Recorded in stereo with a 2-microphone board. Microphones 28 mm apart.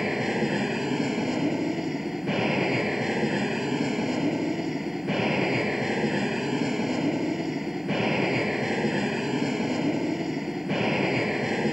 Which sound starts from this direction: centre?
An aircraft, at 0.0 s.